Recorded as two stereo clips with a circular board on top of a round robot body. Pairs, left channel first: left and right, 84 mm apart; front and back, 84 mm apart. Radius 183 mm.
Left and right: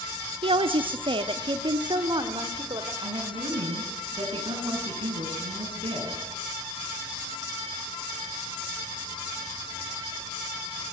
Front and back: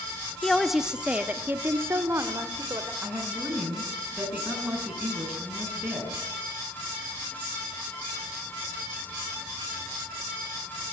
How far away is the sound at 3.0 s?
About 8.5 m.